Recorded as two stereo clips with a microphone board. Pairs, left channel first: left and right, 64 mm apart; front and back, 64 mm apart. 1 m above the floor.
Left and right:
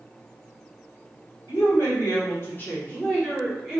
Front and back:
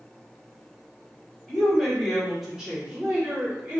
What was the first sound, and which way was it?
A woman speaking, 80° left.